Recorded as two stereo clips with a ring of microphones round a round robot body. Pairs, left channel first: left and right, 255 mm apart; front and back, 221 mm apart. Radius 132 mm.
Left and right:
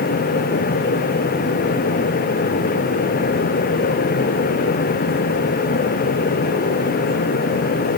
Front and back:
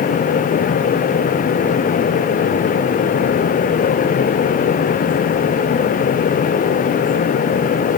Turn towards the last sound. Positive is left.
No sound to turn to.